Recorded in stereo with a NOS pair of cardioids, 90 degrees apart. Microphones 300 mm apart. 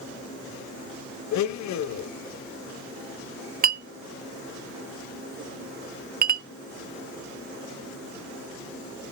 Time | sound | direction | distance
1.3 | a blender | 65° left | 1.0 m
3.6 | a clink | 30° right | 0.6 m